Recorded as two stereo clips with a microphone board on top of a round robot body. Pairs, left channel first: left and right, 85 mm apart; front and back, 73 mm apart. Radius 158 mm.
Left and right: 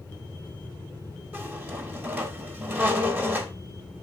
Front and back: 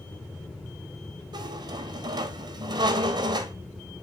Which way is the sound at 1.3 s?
160° right.